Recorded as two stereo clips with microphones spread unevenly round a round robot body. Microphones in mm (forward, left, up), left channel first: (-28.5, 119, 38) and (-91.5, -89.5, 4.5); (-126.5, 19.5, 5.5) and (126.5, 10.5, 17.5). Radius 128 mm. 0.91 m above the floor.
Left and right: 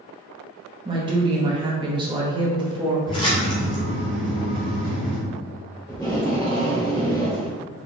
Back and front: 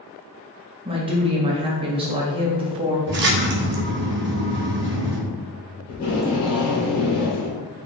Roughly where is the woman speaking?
Ahead right.